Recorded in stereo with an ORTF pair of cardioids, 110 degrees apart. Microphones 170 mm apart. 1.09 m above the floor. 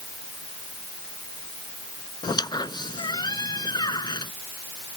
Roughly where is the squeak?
Ahead left.